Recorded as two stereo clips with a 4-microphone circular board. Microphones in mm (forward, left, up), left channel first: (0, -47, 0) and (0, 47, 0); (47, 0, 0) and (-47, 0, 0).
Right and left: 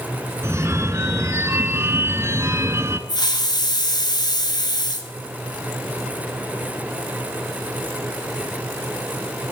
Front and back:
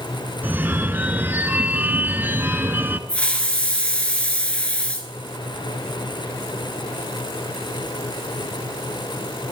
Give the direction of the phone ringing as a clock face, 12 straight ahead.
8 o'clock.